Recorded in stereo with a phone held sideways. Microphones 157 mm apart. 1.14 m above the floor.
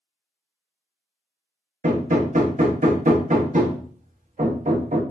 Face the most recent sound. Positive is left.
turn(degrees=-55)  # may be behind; listen again after turning